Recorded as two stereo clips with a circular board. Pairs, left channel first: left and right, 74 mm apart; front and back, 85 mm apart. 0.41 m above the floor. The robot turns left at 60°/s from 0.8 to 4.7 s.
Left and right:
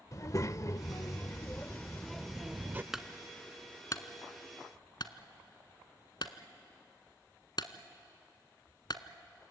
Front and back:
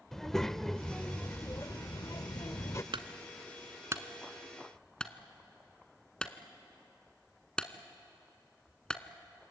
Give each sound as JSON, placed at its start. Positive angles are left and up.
{"t": 0.1, "sound": "a child speaking", "azimuth_deg": 85, "distance_m": 0.7}
{"t": 2.9, "sound": "a clunk", "azimuth_deg": -175, "distance_m": 1.1}